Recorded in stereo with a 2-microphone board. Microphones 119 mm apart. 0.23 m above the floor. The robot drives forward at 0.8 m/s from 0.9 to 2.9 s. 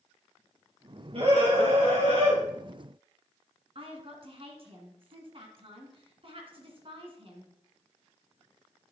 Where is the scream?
55° right (ahead or behind), 5.5 m; by 2.4 s 65° right (ahead or behind), 5 m.